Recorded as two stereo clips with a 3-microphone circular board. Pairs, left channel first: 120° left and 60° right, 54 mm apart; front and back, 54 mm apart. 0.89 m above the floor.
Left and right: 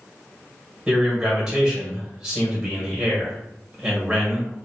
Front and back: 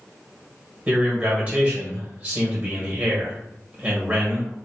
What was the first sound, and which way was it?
A man speaking, 135° right.